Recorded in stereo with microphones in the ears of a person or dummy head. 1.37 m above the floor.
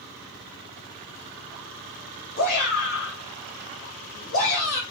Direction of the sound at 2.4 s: 55° left (ahead or behind).